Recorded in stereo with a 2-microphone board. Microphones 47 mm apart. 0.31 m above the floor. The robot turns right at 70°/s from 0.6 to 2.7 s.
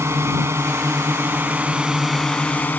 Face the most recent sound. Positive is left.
turn(degrees=45)